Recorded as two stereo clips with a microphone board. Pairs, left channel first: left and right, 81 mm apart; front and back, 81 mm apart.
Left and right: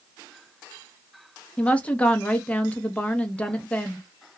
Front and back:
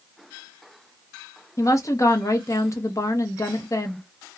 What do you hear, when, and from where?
1.6 s a woman speaking: 25° left, 0.7 m